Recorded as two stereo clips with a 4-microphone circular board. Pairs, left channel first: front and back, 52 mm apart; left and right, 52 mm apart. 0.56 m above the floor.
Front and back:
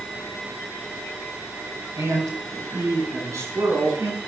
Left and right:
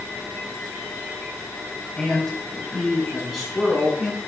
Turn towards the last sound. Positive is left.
turn(degrees=-175)